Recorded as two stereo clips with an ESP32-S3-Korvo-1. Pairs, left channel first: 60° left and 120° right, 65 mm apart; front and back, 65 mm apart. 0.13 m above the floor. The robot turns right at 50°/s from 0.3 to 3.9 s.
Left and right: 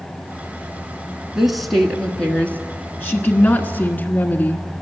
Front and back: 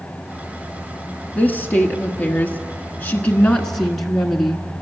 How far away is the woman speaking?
About 1.2 m.